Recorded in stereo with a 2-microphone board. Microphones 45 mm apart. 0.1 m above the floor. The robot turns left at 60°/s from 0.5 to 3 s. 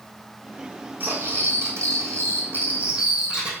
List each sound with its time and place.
1.0 s cutlery clinking: 45° right, 2.5 m; by 3.5 s 165° right, 2.5 m